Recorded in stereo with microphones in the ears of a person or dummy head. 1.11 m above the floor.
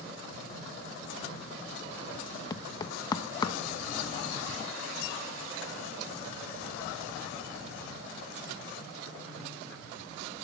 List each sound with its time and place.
2.5 s knocking: 30° left (ahead or behind), 1.2 m